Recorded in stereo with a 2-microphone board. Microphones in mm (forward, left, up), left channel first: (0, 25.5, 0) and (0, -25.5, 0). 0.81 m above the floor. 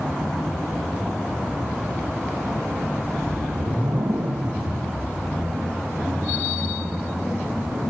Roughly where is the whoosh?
Right.